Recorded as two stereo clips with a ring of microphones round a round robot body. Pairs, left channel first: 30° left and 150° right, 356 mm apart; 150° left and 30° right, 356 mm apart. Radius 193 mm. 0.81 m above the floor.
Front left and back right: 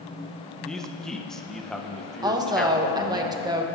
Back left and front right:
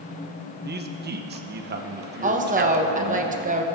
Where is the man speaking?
55° right, 0.9 m.